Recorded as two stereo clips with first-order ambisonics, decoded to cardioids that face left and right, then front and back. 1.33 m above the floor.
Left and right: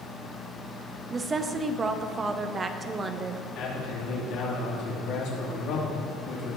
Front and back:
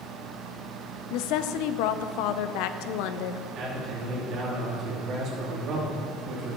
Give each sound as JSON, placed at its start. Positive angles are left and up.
{"t": 1.1, "sound": "a woman speaking", "azimuth_deg": -20, "distance_m": 0.6}
{"t": 3.5, "sound": "a man speaking", "azimuth_deg": 125, "distance_m": 3.0}